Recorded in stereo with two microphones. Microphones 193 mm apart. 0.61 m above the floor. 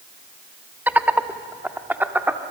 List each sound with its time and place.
0.9 s laughter: 10° right (ahead or behind), 1.0 m